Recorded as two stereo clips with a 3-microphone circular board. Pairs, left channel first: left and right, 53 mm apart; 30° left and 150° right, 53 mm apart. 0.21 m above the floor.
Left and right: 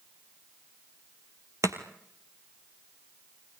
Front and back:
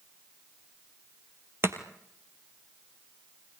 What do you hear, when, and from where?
1.6 s chopping: 110° right, 2.0 m